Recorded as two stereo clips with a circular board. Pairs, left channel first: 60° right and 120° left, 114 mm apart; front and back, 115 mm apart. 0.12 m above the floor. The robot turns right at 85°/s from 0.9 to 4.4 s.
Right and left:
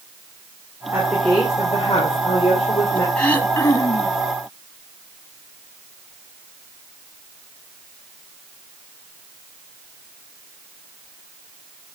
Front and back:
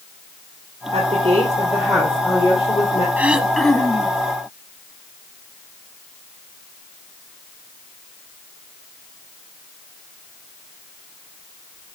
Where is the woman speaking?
170° right, 3 m; by 3.1 s 10° left, 3 m.